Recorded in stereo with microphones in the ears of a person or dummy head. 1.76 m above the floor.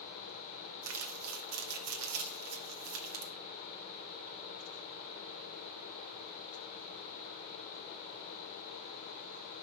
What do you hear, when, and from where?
0.8 s crumpling: 85° right, 1.4 m